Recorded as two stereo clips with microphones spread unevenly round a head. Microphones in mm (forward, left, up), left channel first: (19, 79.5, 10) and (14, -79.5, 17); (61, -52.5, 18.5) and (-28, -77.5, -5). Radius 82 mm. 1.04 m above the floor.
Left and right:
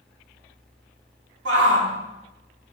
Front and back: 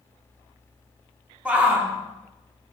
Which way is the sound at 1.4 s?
90° right.